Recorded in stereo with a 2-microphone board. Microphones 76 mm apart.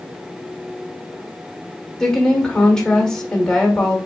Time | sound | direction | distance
2.0 | a woman speaking | 10° left (ahead or behind) | 1.7 m